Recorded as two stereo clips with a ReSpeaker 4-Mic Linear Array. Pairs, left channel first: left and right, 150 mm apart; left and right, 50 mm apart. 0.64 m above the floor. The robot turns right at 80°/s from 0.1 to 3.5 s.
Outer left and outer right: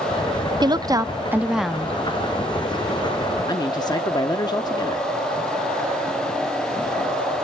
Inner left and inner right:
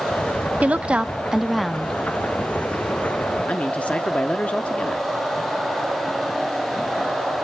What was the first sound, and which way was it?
A woman speaking, 30° right (ahead or behind).